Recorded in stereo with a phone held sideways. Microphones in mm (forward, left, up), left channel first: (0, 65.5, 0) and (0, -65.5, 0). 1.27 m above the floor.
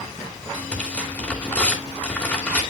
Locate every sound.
0.5 s tearing paper: 10° left (ahead or behind), 2.5 m